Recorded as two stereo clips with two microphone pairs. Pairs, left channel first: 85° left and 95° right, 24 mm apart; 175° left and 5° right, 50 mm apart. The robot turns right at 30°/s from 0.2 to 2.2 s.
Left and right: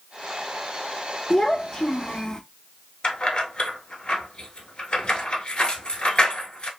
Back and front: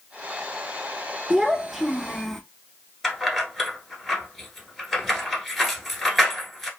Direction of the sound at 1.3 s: 70° left.